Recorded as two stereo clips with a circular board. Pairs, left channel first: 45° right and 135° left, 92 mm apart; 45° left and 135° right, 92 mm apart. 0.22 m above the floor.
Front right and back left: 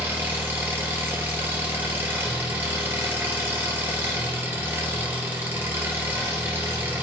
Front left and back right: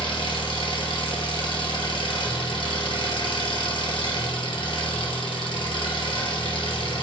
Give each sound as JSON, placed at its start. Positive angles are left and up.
{"t": 0.0, "sound": "an engine running", "azimuth_deg": 70, "distance_m": 1.9}